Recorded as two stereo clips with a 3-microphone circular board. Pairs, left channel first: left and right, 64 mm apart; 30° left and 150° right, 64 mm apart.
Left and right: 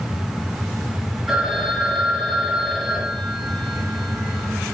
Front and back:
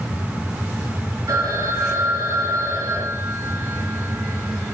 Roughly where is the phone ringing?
Behind.